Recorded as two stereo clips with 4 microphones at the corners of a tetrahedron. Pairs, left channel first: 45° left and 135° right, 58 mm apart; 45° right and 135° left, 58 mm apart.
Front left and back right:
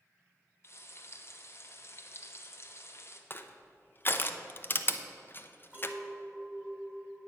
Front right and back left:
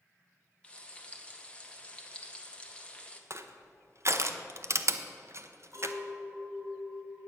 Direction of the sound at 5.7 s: 165° left.